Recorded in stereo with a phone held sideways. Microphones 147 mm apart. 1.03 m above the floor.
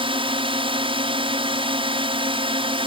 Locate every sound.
0.0 s a drone: 35° right (ahead or behind)